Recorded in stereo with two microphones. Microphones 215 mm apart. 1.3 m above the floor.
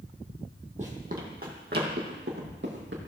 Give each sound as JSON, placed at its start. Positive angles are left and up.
{"t": 0.8, "sound": "running footsteps", "side_deg": -35, "distance_m": 1.9}